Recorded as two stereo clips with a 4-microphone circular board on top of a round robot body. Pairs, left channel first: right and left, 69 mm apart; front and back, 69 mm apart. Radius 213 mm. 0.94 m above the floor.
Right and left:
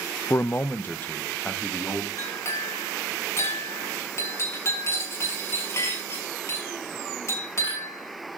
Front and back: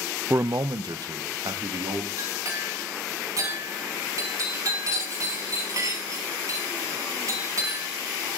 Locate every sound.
0.3 s a man speaking: 130° right, 0.6 m; by 2.1 s 160° right, 3 m
2.2 s a clink: 140° right, 6 m